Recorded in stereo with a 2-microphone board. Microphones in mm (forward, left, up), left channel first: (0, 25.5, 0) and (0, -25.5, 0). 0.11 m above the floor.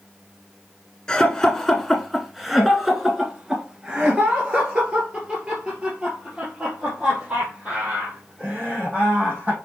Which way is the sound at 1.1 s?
15° left (ahead or behind).